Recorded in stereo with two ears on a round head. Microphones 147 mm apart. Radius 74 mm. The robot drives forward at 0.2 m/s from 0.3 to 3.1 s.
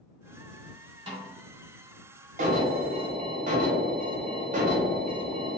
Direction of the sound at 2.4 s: 50° right (ahead or behind).